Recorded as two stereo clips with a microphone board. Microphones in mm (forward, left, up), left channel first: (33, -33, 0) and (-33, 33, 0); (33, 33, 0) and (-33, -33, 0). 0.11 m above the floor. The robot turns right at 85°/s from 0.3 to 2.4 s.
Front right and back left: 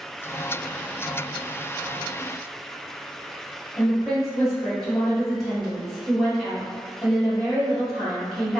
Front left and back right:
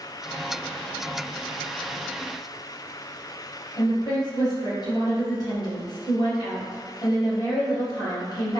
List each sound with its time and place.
3.8 s a woman speaking: 40° left, 1.9 m